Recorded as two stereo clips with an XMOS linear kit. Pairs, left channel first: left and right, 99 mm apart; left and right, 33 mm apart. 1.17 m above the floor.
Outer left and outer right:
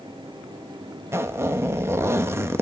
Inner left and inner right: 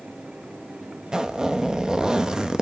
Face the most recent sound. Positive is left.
turn(degrees=-25)  # may be behind; listen again after turning